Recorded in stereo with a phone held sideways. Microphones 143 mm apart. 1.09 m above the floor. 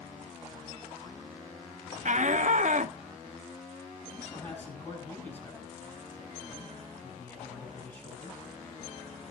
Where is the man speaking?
15° left (ahead or behind), 8.5 m.